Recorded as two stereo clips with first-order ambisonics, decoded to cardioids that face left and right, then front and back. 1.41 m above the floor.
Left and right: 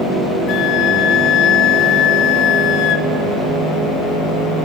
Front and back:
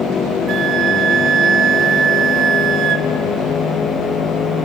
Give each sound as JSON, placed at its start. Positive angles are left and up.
{"t": 0.5, "sound": "a flute", "azimuth_deg": 130, "distance_m": 1.5}